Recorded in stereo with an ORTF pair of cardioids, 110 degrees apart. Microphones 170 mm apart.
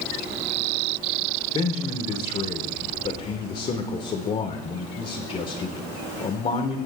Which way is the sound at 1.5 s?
35° left.